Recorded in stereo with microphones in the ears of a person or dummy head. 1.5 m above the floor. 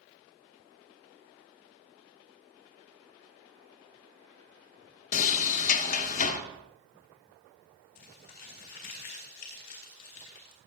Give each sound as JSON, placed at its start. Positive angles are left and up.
{"t": 5.1, "sound": "a sliding door", "side_deg": 45, "distance_m": 1.0}
{"t": 8.0, "sound": "crumpling", "side_deg": 50, "distance_m": 4.0}